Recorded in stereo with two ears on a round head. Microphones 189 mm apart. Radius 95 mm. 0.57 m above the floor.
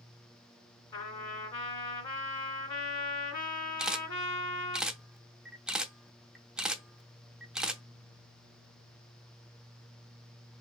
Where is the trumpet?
20° left (ahead or behind), 2.0 m.